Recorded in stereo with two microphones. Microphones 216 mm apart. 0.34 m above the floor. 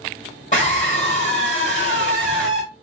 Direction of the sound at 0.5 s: 35° left (ahead or behind).